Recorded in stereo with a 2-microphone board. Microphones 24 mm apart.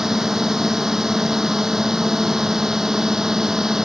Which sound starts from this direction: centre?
A drone, at 0.0 s.